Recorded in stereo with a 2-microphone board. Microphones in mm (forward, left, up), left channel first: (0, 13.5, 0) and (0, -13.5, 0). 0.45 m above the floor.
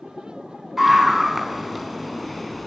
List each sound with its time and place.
0.8 s a scream: 10° right (ahead or behind), 5.5 m; by 2.7 s centre (ahead or behind), 6 m